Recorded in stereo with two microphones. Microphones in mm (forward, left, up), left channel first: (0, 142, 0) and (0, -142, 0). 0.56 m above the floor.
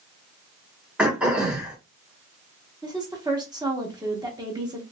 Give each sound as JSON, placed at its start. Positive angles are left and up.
{"t": 1.0, "sound": "throat clearing", "side_deg": -5, "distance_m": 1.2}
{"t": 2.8, "sound": "a woman speaking", "side_deg": -15, "distance_m": 0.9}